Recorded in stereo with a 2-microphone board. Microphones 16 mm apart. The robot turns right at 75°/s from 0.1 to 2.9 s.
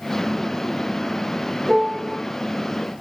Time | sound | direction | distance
1.7 | a piano | 55° right | 1.0 m